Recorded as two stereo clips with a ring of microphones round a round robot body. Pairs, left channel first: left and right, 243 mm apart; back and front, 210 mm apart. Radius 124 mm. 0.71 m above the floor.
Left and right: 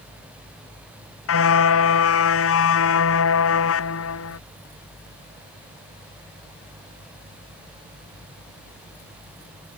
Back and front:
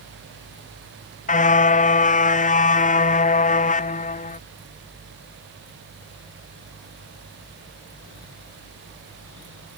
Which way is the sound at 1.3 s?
125° left.